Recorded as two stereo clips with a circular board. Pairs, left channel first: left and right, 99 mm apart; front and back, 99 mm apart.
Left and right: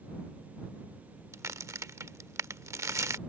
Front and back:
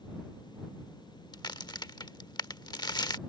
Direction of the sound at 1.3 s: 35° right.